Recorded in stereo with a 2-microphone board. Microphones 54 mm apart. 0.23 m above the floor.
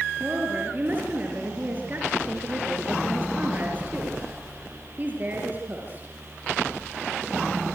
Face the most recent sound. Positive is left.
turn(degrees=-30)  # may be behind; listen again after turning